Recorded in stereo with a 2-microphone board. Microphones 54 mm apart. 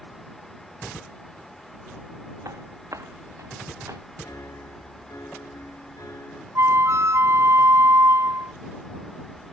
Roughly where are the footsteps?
Right.